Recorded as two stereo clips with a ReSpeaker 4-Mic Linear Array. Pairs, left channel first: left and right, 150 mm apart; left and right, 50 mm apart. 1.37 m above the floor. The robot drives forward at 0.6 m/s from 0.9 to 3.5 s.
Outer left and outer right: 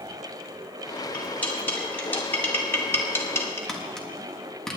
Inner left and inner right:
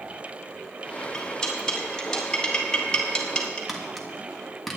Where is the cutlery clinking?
10° left (ahead or behind), 3 m; by 3.6 s 20° left (ahead or behind), 1.8 m.